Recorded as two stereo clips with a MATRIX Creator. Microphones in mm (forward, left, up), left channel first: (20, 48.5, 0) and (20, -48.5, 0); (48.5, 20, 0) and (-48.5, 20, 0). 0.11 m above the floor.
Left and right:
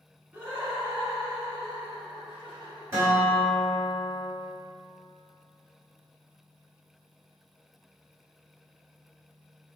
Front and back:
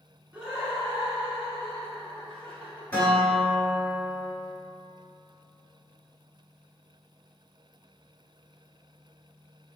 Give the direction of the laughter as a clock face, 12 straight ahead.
4 o'clock.